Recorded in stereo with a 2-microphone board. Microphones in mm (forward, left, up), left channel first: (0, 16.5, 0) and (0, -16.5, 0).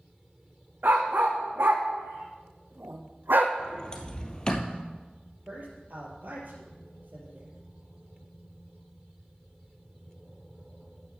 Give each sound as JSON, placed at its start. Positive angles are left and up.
{"t": 0.8, "sound": "a dog barking", "side_deg": -70, "distance_m": 3.0}
{"t": 3.6, "sound": "a sliding door", "side_deg": 25, "distance_m": 2.0}
{"t": 5.5, "sound": "a man speaking", "side_deg": -55, "distance_m": 4.0}